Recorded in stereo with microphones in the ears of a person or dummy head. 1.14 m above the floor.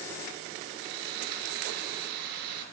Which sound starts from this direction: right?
Sawing, at 0.8 s.